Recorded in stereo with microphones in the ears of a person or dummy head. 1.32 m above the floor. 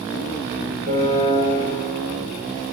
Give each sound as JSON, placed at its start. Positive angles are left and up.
{"t": 0.9, "sound": "a piano", "side_deg": -60, "distance_m": 3.5}